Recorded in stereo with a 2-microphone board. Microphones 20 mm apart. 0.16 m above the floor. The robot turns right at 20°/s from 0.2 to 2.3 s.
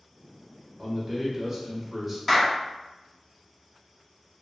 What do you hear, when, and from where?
0.8 s a man speaking: 5° right (ahead or behind), 1.6 m; by 2.2 s 10° left (ahead or behind), 1.6 m
2.3 s a clap: 15° left (ahead or behind), 1.1 m